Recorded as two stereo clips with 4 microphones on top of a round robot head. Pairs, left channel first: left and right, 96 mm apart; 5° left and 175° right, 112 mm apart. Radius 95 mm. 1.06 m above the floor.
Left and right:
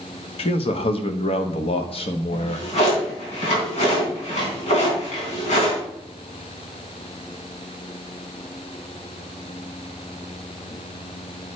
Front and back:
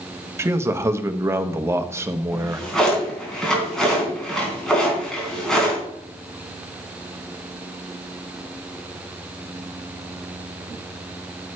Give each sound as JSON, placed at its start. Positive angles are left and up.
{"t": 0.4, "sound": "a man speaking", "azimuth_deg": 120, "distance_m": 1.0}
{"t": 2.3, "sound": "a drawer", "azimuth_deg": 90, "distance_m": 4.0}